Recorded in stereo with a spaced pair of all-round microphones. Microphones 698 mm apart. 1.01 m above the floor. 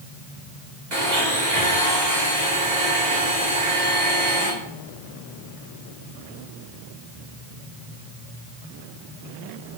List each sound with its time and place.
0.9 s a blender: 75° right (ahead or behind), 3.5 m